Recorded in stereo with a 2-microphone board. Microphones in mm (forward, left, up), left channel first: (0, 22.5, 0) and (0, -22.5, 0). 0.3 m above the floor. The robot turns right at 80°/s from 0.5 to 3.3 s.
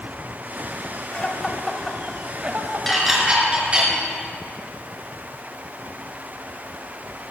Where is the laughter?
30° left (ahead or behind), 1.3 m; by 3.9 s 30° right (ahead or behind), 1.3 m.